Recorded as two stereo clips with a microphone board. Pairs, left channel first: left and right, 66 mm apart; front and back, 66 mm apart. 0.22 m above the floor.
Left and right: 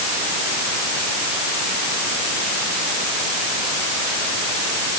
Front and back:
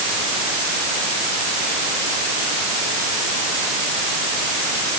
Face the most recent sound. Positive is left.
No sound to turn to.